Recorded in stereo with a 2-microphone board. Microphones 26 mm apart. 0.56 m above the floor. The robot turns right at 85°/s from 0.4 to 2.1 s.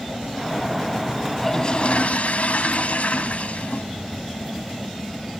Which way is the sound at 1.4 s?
10° left.